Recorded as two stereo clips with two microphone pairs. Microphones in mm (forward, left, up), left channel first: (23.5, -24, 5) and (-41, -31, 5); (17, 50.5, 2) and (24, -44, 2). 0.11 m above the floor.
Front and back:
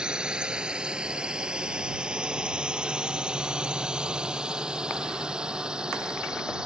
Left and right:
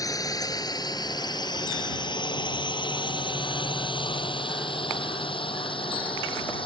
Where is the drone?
115° left; by 6.7 s 110° left.